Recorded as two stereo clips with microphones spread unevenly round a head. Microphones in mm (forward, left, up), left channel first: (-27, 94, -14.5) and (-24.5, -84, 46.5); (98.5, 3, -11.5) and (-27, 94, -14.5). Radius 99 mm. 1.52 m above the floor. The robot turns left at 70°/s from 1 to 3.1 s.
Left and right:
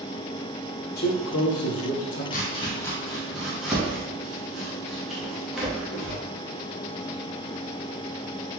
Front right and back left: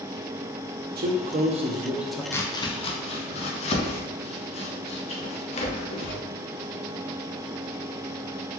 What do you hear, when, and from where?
1.0 s a man speaking: 130° left, 0.8 m; by 2.2 s 45° left, 0.8 m
2.3 s chopping: 30° left, 0.6 m; by 6.2 s 20° right, 0.6 m